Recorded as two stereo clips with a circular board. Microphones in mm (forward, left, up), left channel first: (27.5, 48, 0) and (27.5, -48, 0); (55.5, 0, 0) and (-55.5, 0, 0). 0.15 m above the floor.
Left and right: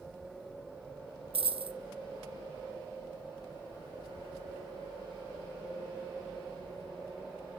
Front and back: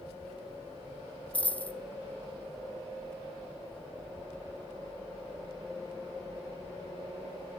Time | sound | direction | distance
1.3 | a dropped coin | 80° right | 0.7 m